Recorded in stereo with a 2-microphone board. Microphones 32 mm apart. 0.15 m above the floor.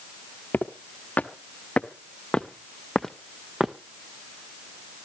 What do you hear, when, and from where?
0.5 s footsteps: 60° left (ahead or behind), 1.7 m; by 3.8 s 15° right (ahead or behind), 0.9 m